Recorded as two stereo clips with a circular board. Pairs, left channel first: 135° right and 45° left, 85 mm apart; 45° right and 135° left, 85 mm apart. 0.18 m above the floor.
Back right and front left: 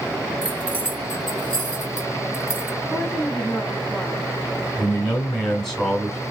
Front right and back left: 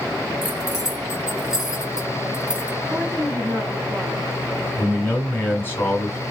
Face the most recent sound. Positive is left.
turn(degrees=-55)